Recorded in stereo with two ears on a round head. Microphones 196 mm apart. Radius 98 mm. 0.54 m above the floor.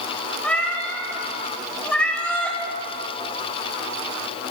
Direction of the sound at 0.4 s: 5° left (ahead or behind).